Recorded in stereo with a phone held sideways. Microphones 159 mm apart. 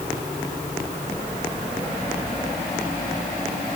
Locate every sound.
Only background noise.